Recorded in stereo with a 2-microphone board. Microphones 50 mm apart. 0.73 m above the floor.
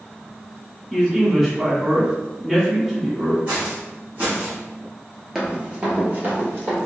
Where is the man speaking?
5° right (ahead or behind), 1.1 m.